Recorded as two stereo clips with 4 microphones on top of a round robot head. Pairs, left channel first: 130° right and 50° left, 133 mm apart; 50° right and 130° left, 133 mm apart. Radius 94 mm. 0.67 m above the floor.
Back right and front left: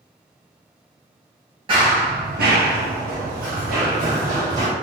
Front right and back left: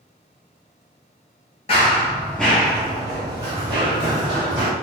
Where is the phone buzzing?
No phone buzzing in this recording.